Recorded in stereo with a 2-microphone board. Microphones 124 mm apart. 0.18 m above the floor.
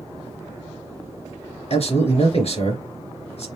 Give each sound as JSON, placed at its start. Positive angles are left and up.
{"t": 1.7, "sound": "a man speaking", "side_deg": 55, "distance_m": 2.5}